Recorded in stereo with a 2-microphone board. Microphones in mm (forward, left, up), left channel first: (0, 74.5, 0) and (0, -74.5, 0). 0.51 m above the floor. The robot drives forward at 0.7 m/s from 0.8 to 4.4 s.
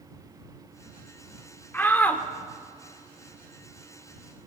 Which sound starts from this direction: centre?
A shout, at 1.7 s.